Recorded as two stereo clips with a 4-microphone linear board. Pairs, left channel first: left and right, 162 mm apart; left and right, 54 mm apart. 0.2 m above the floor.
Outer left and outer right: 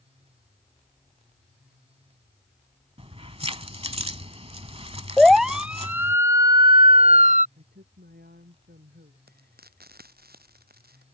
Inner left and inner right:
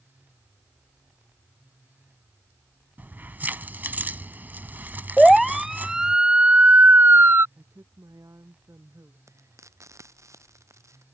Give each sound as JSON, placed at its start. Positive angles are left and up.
{"t": 3.0, "sound": "keys jangling", "side_deg": -35}
{"t": 5.2, "sound": "a siren", "side_deg": 0}
{"t": 7.6, "sound": "a woman speaking", "side_deg": -75}
{"t": 9.3, "sound": "frying", "side_deg": -70}